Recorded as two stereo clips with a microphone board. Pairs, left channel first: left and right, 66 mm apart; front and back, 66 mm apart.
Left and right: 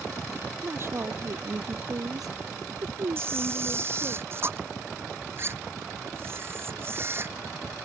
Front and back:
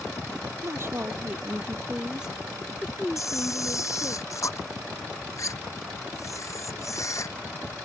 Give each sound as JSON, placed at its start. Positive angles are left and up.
{"t": 0.6, "sound": "a woman speaking", "azimuth_deg": -140}
{"t": 3.2, "sound": "a camera shutter", "azimuth_deg": -40}